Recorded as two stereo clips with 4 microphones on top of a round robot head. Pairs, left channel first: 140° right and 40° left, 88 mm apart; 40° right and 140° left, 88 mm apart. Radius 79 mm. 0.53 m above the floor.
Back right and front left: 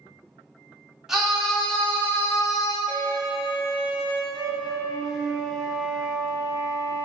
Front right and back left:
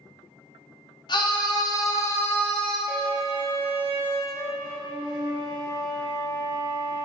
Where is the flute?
125° left, 1.9 m.